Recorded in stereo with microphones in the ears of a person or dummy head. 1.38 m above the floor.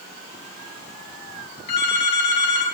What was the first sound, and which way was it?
A phone ringing, 40° left (ahead or behind).